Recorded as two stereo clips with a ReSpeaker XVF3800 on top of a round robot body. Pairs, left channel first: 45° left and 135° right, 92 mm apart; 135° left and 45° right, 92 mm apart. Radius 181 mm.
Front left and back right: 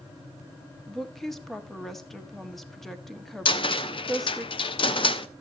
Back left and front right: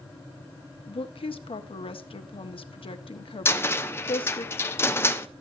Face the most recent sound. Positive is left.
turn(degrees=70)